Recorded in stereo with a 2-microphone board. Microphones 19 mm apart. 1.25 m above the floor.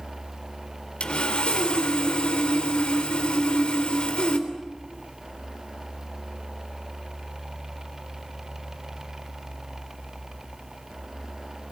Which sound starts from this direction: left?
Sawing, at 1.0 s.